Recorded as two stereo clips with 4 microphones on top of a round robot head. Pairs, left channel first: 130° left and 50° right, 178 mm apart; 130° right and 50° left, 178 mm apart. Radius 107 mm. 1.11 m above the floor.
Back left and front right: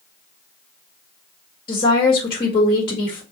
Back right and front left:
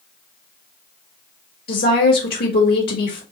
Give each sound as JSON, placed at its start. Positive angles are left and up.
{"t": 1.7, "sound": "a woman speaking", "azimuth_deg": -165, "distance_m": 1.7}